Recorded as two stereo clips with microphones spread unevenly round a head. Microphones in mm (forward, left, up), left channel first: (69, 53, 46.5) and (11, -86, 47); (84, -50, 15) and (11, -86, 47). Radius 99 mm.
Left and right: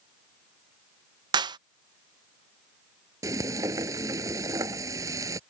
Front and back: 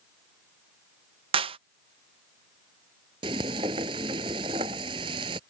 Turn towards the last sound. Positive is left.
turn(degrees=175)